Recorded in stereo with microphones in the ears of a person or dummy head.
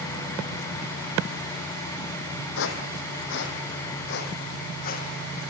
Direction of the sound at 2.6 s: 70° left (ahead or behind).